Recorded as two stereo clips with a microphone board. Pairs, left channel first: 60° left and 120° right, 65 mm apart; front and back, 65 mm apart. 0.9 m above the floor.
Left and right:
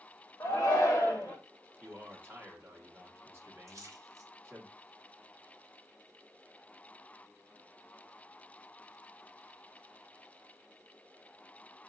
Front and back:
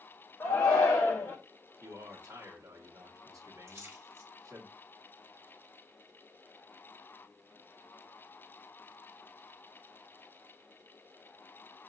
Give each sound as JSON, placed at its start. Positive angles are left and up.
{"t": 0.4, "sound": "a shout", "azimuth_deg": 25, "distance_m": 1.2}
{"t": 1.8, "sound": "a man speaking", "azimuth_deg": -170, "distance_m": 1.7}
{"t": 3.7, "sound": "a splash", "azimuth_deg": -145, "distance_m": 1.7}